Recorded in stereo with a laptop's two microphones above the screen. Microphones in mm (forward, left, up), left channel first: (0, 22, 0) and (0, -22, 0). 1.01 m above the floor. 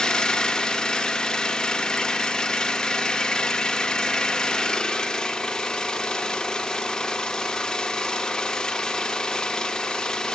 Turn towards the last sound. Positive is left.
turn(degrees=20)  # may be behind; listen again after turning